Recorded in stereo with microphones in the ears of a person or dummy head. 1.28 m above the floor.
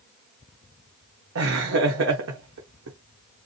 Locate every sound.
1.4 s laughter: 75° right (ahead or behind), 1.2 m